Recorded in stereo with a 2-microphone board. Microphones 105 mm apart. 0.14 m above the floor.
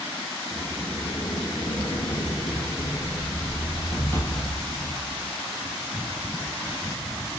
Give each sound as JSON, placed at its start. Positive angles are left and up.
{"t": 0.5, "sound": "a sliding door", "side_deg": 20, "distance_m": 0.8}